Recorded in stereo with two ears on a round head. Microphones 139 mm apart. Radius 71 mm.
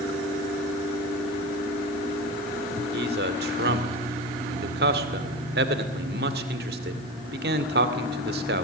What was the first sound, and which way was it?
A man speaking, 65° right (ahead or behind).